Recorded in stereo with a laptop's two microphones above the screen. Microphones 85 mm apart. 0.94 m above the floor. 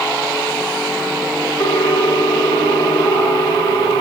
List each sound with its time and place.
1.6 s a ringtone: 70° left (ahead or behind), 5.5 m